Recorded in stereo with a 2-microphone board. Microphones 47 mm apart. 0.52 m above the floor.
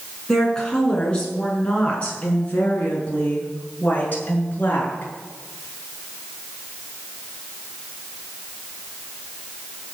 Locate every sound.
0.3 s a woman speaking: 15° left (ahead or behind), 5.5 m; by 5.1 s 40° left (ahead or behind), 6.5 m